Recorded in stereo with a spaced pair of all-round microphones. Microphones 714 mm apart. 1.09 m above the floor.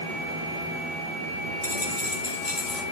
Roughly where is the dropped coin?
Left.